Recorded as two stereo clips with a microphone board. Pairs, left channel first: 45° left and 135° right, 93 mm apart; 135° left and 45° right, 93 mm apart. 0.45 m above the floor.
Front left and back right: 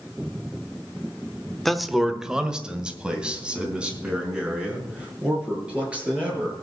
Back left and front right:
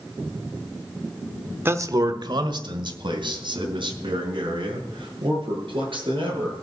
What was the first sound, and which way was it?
A man speaking, 40° right.